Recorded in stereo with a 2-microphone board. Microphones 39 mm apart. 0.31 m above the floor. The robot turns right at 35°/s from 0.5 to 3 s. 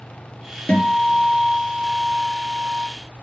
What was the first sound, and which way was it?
A guitar, 145° left.